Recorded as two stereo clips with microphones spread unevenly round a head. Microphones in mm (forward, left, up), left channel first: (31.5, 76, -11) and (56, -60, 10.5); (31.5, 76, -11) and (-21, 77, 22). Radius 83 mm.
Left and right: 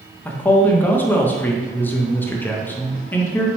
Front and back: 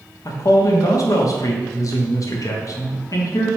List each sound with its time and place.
0.2 s a man speaking: 20° left, 0.5 m